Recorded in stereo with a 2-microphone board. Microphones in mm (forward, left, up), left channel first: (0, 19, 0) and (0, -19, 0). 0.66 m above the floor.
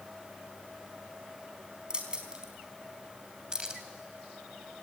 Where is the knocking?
No knocking in this recording.